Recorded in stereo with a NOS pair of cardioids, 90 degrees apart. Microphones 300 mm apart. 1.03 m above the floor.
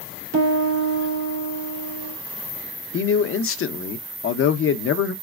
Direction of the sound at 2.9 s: 45° left.